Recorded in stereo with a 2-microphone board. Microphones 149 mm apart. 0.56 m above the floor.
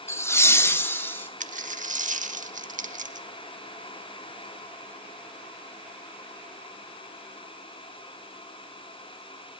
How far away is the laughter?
About 0.6 m.